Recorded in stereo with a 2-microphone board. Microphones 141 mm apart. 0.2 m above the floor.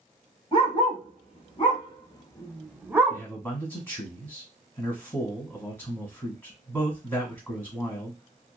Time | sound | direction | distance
0.5 | a dog barking | 40° left (ahead or behind) | 1.7 m
3.1 | a man speaking | 15° left (ahead or behind) | 1.5 m